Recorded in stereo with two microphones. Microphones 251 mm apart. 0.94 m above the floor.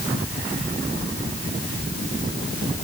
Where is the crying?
No crying in this recording.